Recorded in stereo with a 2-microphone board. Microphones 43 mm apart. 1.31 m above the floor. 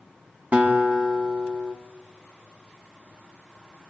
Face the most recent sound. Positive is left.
turn(degrees=-40)  # may be behind; listen again after turning